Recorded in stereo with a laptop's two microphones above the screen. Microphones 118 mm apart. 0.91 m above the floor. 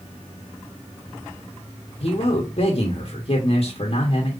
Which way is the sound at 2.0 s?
55° left (ahead or behind).